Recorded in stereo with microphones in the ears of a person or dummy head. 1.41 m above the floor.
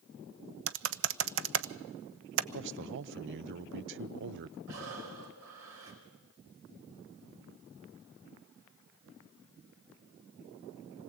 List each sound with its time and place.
0.7 s typing on a keyboard: 60° right (ahead or behind), 0.7 m
2.5 s a man speaking: 55° right (ahead or behind), 0.5 m
4.7 s breathing: 70° right (ahead or behind), 4.5 m